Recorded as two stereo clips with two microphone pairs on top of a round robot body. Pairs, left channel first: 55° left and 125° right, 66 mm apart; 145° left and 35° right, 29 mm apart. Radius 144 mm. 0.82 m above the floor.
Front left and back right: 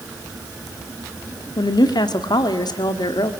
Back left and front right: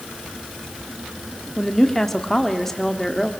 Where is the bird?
I don't hear a bird.